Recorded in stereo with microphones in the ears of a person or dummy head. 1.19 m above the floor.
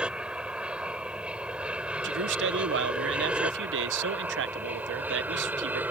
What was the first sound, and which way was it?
An aircraft, 5° right (ahead or behind).